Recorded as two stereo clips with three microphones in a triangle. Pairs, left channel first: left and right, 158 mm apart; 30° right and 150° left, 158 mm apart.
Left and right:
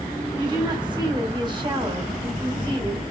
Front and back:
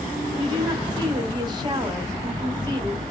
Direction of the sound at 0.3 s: 150° right.